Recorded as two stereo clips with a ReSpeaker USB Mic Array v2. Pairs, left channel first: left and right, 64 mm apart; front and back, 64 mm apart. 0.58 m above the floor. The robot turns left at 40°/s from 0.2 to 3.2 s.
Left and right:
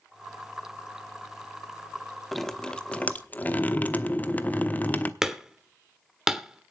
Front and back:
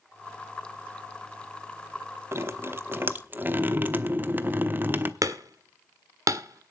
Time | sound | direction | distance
2.3 | dripping | 175° left | 0.9 m
5.2 | hammering | 170° right | 1.3 m